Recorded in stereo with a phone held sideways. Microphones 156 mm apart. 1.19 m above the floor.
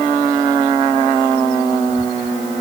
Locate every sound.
Only background noise.